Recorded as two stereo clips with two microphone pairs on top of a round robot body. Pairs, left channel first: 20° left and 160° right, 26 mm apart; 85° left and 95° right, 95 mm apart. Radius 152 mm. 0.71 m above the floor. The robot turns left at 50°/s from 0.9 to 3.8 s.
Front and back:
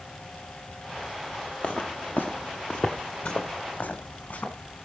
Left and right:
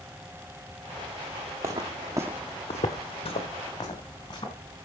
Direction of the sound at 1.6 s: 30° right.